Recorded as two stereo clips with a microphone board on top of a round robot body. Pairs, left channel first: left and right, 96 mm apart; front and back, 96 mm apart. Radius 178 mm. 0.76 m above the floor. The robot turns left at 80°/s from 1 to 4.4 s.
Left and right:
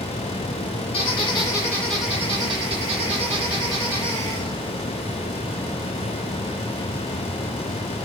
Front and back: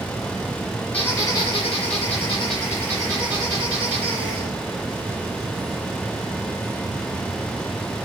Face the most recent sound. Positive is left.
turn(degrees=160)